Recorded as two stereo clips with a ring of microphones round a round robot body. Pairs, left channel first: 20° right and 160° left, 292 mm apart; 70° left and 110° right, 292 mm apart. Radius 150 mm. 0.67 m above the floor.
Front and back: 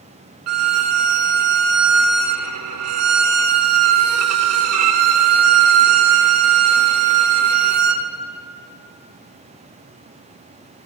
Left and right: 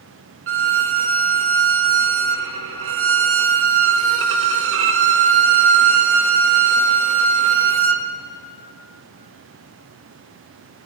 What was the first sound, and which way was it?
A violin, 160° right.